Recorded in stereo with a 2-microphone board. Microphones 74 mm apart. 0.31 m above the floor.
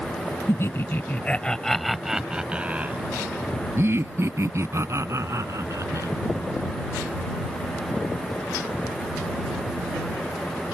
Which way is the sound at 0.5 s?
40° left (ahead or behind).